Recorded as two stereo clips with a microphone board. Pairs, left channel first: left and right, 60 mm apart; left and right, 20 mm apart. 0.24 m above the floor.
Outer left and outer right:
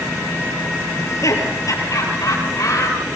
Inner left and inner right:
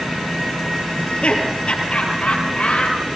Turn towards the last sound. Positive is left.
turn(degrees=75)  # may be behind; listen again after turning